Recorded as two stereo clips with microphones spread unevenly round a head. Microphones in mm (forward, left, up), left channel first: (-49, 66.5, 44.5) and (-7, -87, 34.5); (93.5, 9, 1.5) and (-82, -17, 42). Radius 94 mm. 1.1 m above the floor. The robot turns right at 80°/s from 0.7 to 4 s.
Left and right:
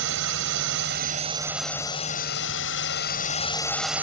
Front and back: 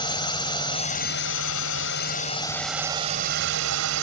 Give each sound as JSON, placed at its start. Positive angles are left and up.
{"t": 0.0, "sound": "a drone", "azimuth_deg": -60}